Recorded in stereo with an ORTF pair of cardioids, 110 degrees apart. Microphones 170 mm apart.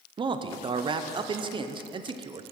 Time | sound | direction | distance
0.2 | a man speaking | 30° right | 0.6 m